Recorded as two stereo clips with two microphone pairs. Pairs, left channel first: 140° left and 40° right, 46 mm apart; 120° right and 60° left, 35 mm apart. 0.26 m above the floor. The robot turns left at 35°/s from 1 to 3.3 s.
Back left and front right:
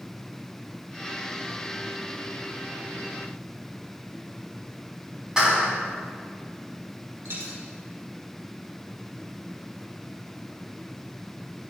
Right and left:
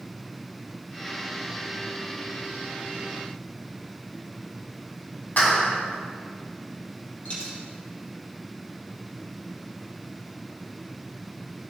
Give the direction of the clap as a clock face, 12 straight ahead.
4 o'clock.